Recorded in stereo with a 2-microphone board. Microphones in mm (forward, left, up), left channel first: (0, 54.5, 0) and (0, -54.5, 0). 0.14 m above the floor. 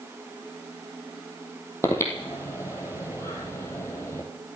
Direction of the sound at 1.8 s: 25° left (ahead or behind).